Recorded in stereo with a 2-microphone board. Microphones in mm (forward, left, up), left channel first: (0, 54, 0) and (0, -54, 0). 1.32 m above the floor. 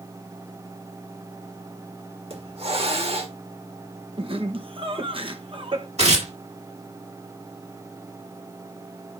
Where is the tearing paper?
80° right, 3 m.